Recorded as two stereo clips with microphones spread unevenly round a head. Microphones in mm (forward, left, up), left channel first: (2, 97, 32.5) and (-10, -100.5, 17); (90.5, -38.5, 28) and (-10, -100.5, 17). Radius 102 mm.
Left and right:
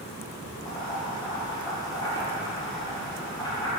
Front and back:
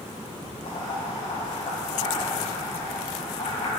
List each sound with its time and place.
0.7 s boiling: 20° left, 4.5 m